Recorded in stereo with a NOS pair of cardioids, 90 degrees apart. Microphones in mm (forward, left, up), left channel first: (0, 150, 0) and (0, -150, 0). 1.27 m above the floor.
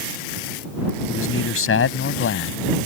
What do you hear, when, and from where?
1.1 s a man speaking: 45° left